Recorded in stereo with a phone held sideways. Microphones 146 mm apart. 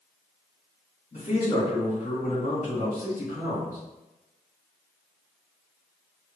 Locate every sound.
1.1 s a man speaking: 60° left (ahead or behind), 1.6 m